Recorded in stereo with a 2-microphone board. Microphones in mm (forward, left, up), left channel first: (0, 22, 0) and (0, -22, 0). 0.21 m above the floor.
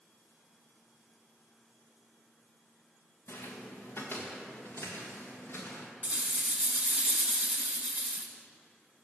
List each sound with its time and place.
3.3 s footsteps: 70° left (ahead or behind), 1.1 m; by 5.9 s 65° left (ahead or behind), 2.5 m
6.0 s a rattle: 35° right (ahead or behind), 0.8 m